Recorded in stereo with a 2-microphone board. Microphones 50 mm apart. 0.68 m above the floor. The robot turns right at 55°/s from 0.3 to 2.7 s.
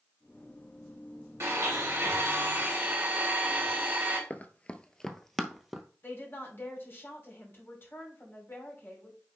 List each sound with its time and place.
1.4 s a blender: 105° right, 3 m; by 4.2 s 35° right, 3 m
4.3 s running footsteps: 30° left (ahead or behind), 0.7 m; by 5.8 s 5° right (ahead or behind), 1.0 m
6.0 s a woman speaking: 50° left (ahead or behind), 2.5 m